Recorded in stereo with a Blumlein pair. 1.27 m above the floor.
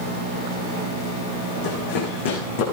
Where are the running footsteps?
50° left, 5.5 m.